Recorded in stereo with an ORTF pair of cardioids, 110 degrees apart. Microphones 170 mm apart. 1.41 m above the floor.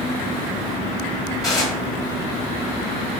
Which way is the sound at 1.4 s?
20° left.